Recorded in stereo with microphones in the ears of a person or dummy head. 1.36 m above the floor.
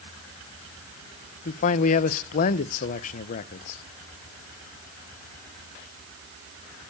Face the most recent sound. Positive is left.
turn(degrees=45)  # may be behind; listen again after turning